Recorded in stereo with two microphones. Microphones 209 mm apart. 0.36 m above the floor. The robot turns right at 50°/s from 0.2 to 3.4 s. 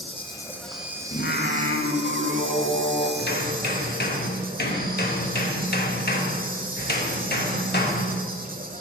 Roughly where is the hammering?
Left.